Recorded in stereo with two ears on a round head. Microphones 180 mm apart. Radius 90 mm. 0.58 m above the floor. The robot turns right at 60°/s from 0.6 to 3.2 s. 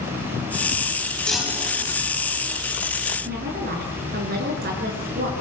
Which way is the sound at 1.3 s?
175° left.